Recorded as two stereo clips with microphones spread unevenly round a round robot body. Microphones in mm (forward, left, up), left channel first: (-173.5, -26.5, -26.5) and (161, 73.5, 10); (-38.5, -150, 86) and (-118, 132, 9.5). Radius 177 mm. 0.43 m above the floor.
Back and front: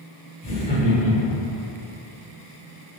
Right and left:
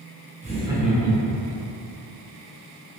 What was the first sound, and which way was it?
Laughter, 135° left.